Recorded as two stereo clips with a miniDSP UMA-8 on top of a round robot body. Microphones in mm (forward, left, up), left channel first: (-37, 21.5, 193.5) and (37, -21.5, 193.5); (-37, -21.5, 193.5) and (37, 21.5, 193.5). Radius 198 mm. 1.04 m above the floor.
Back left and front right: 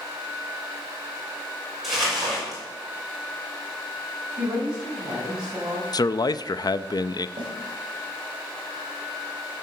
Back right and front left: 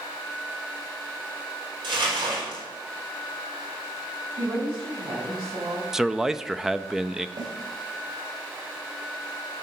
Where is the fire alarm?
I don't hear a fire alarm.